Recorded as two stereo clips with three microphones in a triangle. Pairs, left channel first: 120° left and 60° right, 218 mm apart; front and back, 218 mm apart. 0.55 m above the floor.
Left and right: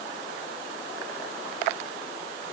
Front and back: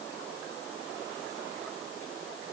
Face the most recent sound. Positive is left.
No sound to turn to.